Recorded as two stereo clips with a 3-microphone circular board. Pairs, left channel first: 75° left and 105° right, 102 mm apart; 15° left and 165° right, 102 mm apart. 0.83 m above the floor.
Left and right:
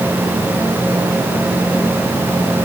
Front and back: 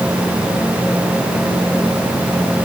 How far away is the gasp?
No gasp in this recording.